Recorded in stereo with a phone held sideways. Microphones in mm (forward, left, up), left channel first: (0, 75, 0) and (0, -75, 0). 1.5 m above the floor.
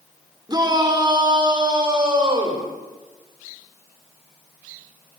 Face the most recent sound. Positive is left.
turn(degrees=-35)  # may be behind; listen again after turning